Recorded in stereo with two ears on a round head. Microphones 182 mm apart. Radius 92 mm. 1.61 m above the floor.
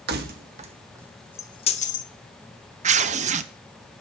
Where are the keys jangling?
55° right (ahead or behind), 1.3 m; by 2.1 s 45° left (ahead or behind), 1.1 m.